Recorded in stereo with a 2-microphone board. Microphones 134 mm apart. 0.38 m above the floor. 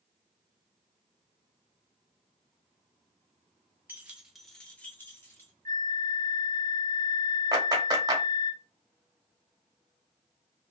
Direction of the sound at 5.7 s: 85° right.